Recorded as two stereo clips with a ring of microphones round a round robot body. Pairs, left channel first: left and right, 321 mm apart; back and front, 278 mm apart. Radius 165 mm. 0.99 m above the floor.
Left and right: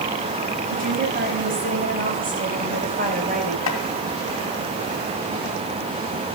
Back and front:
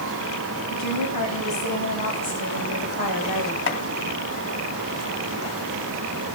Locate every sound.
0.7 s a woman speaking: 155° right, 7 m
3.7 s chopping: 135° left, 2.5 m